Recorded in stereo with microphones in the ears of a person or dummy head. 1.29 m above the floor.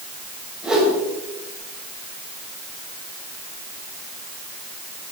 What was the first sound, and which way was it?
A whoosh, 5° right (ahead or behind).